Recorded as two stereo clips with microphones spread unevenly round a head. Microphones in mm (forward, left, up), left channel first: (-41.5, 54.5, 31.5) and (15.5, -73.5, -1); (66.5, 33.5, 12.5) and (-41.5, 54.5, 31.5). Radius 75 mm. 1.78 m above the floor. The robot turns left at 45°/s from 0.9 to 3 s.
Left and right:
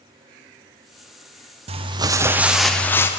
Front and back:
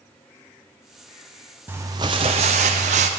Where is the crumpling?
120° right, 0.7 m; by 3.1 s 175° right, 0.7 m.